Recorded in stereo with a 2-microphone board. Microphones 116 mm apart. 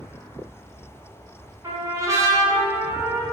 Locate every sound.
1.6 s a trumpet: 30° right (ahead or behind), 0.9 m